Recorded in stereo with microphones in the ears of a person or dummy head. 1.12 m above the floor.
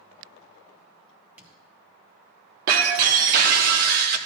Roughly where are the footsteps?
Centre.